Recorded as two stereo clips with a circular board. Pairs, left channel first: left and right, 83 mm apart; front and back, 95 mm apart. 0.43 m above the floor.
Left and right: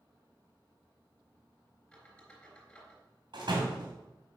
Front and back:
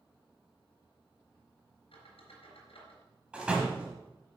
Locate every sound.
1.9 s a squeak: 10° left, 3.5 m
3.3 s a door slam: 100° right, 2.0 m